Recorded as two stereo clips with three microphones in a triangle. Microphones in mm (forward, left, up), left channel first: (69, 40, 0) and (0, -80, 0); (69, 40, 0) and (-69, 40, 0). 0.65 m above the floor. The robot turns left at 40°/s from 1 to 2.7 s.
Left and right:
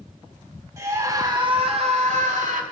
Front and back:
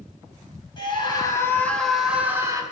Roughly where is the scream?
Ahead right.